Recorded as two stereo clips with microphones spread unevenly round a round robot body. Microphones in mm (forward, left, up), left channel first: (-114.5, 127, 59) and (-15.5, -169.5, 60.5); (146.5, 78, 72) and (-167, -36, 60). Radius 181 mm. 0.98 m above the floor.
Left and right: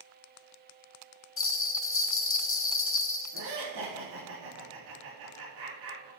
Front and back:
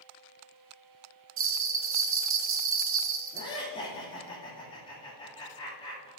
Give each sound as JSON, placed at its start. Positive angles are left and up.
{"t": 1.4, "sound": "a bell", "azimuth_deg": 155, "distance_m": 1.1}
{"t": 3.3, "sound": "laughter", "azimuth_deg": -55, "distance_m": 3.5}